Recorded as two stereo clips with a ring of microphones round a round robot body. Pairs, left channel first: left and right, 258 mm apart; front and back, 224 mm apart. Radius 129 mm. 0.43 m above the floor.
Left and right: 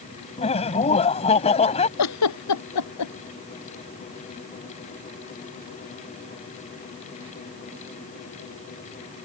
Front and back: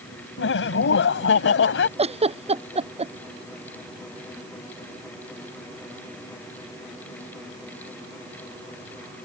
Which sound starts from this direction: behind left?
A giggle, at 2.0 s.